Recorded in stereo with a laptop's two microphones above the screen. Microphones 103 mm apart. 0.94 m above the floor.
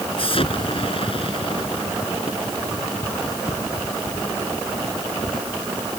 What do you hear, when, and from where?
0.2 s an explosion: 55° left (ahead or behind)